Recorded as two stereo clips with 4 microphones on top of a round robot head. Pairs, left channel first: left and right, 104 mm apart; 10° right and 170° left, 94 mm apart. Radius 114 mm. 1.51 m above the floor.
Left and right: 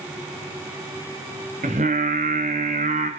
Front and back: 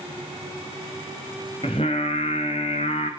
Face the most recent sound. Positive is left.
turn(degrees=-60)